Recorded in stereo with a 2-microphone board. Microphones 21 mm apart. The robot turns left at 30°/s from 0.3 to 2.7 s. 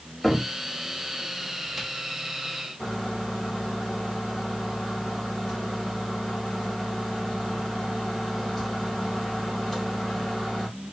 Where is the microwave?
10° left (ahead or behind), 1.8 m.